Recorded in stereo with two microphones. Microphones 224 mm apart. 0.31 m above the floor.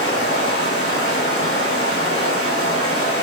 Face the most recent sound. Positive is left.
turn(degrees=50)  # may be behind; listen again after turning